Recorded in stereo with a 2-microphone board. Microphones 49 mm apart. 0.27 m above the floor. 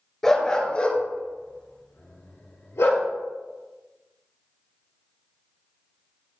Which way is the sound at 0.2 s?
10° left (ahead or behind).